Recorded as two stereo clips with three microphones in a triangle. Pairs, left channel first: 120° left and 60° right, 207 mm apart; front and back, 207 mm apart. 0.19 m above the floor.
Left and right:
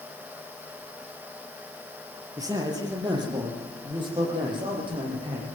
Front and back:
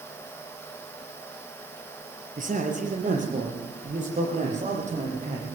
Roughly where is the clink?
No clink in this recording.